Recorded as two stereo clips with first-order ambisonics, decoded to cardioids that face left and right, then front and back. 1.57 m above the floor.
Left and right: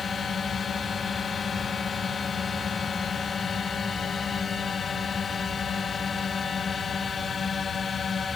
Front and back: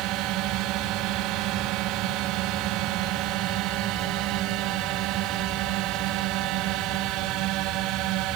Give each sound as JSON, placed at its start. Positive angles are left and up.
{"t": 0.0, "sound": "a drone", "azimuth_deg": 155}